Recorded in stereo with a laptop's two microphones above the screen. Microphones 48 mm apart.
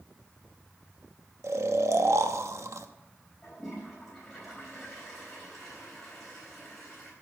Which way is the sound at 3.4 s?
5° left (ahead or behind).